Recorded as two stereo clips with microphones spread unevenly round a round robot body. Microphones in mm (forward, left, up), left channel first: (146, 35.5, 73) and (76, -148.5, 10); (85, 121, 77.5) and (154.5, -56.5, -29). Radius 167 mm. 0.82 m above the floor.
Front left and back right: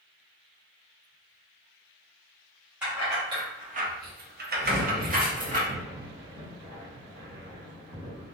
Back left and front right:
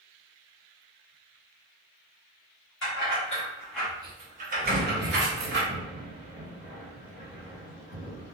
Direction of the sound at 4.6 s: 170° right.